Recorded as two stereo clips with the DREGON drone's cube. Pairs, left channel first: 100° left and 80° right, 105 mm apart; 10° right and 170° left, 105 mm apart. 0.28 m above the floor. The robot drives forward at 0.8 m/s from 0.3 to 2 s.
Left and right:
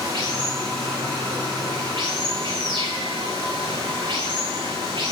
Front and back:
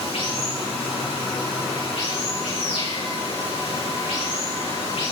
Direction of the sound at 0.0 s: 30° right.